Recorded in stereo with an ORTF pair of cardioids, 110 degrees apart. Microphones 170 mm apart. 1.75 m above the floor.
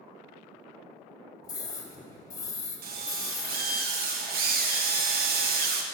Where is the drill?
65° right, 1.5 m.